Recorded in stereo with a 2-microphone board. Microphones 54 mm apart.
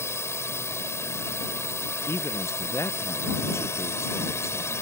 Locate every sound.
0.0 s a drone: 60° left (ahead or behind)
2.1 s a man speaking: 60° left (ahead or behind)